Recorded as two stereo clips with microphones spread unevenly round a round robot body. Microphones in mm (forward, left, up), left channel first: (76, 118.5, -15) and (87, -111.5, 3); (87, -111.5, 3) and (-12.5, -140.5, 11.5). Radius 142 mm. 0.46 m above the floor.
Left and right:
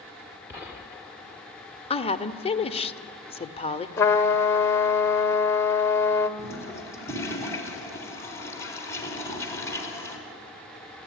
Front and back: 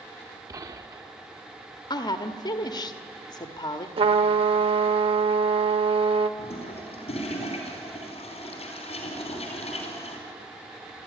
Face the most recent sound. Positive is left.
turn(degrees=15)